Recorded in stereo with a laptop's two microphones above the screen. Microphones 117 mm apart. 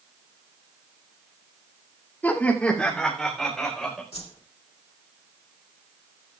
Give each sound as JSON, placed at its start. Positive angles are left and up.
{"t": 2.2, "sound": "laughter", "side_deg": 15, "distance_m": 2.0}
{"t": 4.1, "sound": "a whoosh", "side_deg": 70, "distance_m": 2.5}